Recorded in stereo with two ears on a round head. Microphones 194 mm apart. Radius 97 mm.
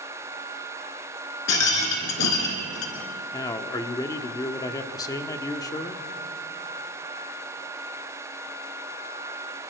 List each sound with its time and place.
1.5 s a rattle: 85° left, 3 m
3.3 s a man speaking: 15° left (ahead or behind), 1.3 m